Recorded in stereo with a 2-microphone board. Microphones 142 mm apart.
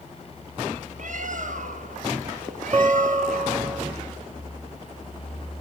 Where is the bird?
65° right (ahead or behind), 1.0 m.